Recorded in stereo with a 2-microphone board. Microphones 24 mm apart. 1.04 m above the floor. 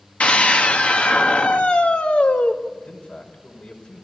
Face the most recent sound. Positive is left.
turn(degrees=80)